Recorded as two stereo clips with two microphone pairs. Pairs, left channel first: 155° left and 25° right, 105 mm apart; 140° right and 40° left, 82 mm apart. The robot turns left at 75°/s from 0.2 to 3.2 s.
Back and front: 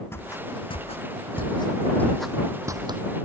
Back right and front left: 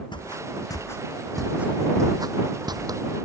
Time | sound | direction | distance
0.1 | footsteps | 140° right | ?